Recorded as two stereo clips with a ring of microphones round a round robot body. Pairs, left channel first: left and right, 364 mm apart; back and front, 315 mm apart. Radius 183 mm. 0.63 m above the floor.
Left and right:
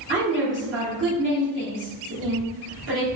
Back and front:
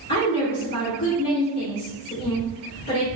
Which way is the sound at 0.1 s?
145° right.